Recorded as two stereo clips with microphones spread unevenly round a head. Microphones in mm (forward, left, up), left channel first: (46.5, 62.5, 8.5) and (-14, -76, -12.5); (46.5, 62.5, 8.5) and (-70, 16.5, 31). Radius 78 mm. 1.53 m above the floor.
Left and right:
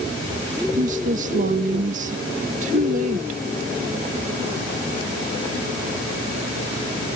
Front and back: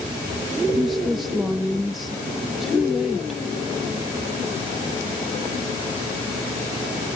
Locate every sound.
0.8 s a woman speaking: 75° right